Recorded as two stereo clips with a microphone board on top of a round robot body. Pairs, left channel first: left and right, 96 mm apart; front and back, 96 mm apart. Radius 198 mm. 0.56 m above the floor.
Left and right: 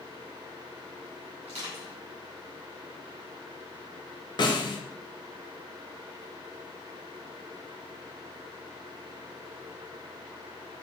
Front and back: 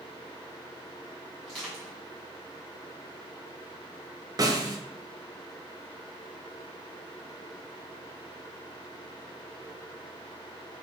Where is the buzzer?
No buzzer in this recording.